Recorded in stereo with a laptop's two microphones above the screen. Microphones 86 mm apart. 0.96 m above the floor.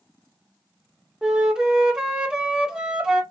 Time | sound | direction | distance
1.2 | a flute | 5° right (ahead or behind) | 0.8 m